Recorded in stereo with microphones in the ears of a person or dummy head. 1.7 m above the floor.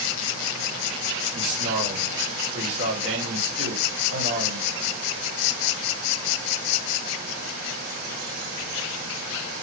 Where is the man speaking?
65° right (ahead or behind), 1.4 m.